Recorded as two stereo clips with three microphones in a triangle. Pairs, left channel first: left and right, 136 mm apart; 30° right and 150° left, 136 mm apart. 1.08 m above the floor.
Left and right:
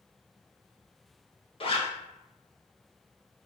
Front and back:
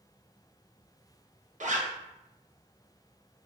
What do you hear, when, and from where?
1.6 s a zipper: 130° left, 0.5 m